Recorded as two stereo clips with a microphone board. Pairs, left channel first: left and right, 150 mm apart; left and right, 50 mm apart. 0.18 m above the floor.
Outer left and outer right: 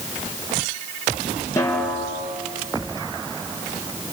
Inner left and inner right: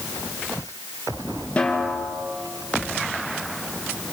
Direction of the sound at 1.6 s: 20° left (ahead or behind).